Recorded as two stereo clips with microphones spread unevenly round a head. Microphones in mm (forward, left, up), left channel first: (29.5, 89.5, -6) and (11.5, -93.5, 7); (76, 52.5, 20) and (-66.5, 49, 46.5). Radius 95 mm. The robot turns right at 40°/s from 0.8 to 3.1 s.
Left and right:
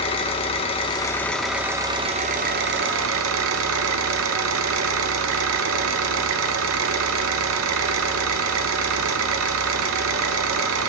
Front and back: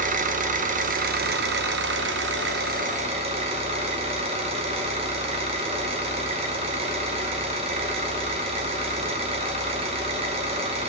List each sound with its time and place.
0.0 s an engine running: 150° left, 0.8 m; by 10.9 s 120° right, 0.8 m